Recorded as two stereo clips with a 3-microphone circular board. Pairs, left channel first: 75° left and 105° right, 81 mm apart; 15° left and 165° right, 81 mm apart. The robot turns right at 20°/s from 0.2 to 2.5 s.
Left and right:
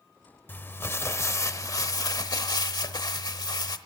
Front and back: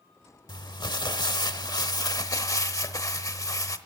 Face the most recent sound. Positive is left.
turn(degrees=55)